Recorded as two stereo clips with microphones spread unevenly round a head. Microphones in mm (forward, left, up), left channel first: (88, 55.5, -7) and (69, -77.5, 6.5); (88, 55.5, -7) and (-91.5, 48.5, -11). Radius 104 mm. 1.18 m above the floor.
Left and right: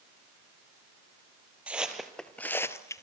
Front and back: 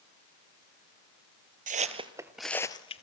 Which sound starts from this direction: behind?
Footsteps, at 1.7 s.